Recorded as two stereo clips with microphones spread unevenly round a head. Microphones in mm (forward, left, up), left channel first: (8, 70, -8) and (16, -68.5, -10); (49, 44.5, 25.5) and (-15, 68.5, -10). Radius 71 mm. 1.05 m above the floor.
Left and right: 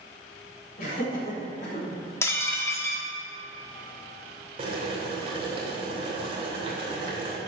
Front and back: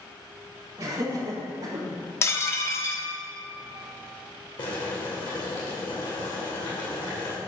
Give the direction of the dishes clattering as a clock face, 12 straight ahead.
11 o'clock.